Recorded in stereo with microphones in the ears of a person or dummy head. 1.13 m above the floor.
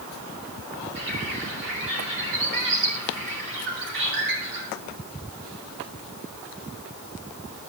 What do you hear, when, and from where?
0.9 s a bird: 65° right (ahead or behind), 7.5 m